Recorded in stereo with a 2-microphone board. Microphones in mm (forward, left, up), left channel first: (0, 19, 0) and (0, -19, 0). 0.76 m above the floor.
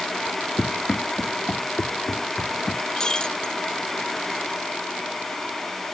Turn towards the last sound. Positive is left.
turn(degrees=20)  # may be behind; listen again after turning